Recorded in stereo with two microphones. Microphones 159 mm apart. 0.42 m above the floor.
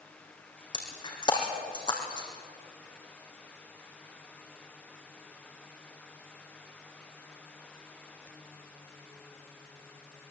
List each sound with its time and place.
0.7 s breaking glass: 30° left (ahead or behind), 4 m